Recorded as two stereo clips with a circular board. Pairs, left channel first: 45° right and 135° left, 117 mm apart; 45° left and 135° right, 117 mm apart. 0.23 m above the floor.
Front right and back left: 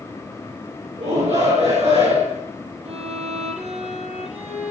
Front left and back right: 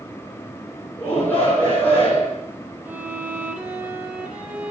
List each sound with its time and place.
1.0 s a shout: 120° left, 9.5 m
2.9 s a violin: 150° left, 5 m